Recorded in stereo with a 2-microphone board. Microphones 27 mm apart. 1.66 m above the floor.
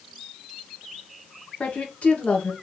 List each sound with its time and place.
1.6 s a woman speaking: 55° left (ahead or behind), 1.9 m